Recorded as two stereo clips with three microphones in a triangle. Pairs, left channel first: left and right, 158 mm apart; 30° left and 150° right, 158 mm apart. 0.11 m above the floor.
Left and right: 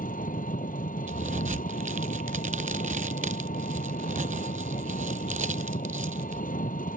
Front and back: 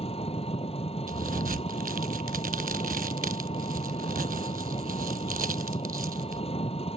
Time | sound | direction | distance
0.0 | an engine running | 75° left | ?
1.1 | a crack | 125° right | ?